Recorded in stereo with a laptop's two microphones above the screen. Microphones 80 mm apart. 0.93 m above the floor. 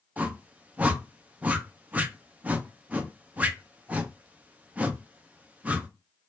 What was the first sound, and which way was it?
A whoosh, 20° right (ahead or behind).